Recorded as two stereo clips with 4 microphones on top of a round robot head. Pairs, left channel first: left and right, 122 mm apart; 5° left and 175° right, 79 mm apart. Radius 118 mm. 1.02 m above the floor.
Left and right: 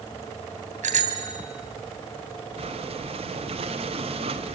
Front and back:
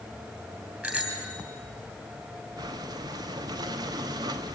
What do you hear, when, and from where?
0.8 s a bicycle bell: 105° right, 2.5 m
2.6 s breathing: 135° right, 1.0 m